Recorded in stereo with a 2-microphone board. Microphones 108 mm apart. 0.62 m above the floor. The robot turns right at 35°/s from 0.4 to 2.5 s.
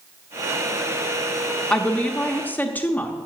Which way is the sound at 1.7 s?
10° left (ahead or behind).